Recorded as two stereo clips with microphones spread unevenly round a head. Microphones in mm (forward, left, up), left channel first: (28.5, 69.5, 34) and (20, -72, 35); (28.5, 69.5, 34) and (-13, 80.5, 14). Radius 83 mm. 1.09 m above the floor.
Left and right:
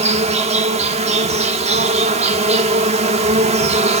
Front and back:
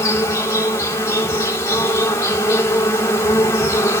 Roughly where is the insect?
Ahead right.